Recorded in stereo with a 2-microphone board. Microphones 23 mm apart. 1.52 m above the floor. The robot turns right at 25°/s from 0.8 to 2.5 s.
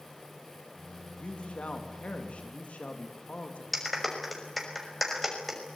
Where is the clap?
Centre (ahead or behind), 5.5 m.